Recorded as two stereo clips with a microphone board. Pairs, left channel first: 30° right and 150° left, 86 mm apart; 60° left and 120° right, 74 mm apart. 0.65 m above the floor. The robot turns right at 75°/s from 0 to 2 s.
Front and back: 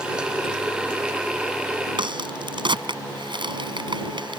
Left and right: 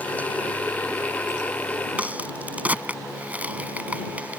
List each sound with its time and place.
2.0 s a crack: 170° left